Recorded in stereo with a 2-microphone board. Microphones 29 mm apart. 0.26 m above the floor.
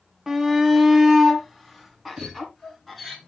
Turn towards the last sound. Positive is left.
turn(degrees=-25)  # may be behind; listen again after turning